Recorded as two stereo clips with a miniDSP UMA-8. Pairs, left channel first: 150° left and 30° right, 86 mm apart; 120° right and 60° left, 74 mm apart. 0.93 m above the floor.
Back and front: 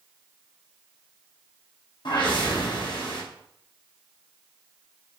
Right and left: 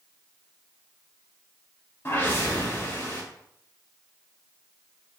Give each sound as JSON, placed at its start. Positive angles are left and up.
{"t": 2.0, "sound": "a whoosh", "azimuth_deg": 180, "distance_m": 0.9}